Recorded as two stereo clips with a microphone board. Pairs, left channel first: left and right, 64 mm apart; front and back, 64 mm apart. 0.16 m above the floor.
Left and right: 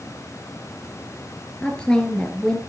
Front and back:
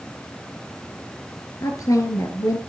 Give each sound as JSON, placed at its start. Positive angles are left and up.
{"t": 1.6, "sound": "a woman speaking", "azimuth_deg": 15, "distance_m": 2.5}